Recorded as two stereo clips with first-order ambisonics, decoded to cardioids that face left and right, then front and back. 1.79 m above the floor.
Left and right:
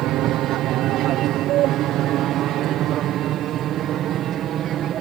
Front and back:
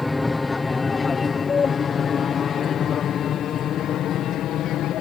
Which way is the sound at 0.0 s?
85° right.